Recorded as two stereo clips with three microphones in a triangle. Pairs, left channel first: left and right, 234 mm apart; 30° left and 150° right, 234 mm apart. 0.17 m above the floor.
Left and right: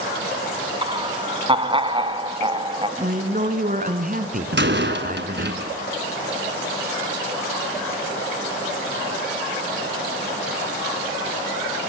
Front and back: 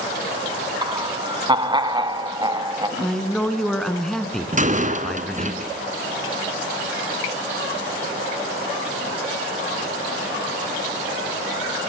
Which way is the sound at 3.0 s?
55° right.